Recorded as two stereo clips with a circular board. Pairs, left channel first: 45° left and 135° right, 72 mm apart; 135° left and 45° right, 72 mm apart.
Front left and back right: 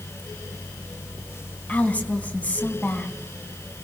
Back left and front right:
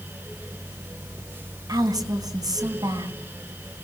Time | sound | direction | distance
1.7 | a woman speaking | 25° right | 3.5 m